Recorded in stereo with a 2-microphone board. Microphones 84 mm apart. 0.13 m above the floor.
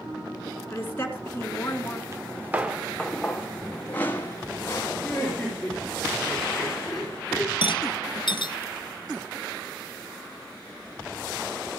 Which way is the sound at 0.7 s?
25° left (ahead or behind).